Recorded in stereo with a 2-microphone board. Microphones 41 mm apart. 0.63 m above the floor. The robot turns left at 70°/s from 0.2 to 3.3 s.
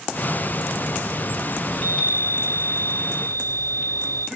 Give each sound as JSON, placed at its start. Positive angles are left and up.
{"t": 1.7, "sound": "a chime", "azimuth_deg": 105, "distance_m": 1.2}